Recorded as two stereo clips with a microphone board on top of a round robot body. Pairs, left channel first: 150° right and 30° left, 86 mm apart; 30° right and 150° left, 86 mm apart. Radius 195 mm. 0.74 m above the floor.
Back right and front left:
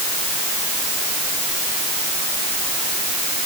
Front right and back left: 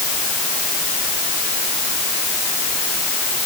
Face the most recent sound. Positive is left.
No sound to turn to.